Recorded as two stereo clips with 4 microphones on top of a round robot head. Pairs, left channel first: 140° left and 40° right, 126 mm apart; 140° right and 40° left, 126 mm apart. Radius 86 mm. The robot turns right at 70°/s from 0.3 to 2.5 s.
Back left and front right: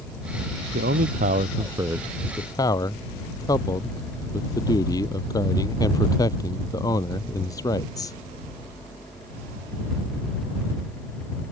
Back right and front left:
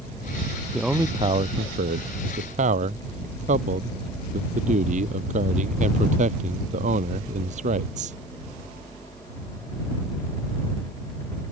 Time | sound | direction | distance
0.7 | a man speaking | 50° right | ?